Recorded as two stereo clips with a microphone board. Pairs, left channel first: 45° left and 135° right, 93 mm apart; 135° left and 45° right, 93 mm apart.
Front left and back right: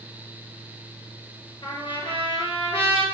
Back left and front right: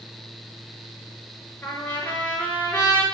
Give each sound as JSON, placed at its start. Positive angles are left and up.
{"t": 1.6, "sound": "a trumpet", "azimuth_deg": 70, "distance_m": 4.5}